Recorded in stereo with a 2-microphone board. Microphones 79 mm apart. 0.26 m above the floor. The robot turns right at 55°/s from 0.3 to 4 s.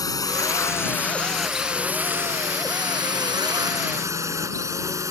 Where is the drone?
50° left (ahead or behind); by 5.1 s 40° right (ahead or behind).